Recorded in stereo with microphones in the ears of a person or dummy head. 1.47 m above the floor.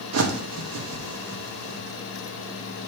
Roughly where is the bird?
Right.